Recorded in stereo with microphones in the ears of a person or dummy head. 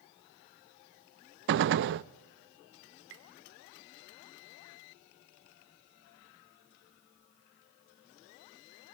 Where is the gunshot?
60° right (ahead or behind), 0.6 m.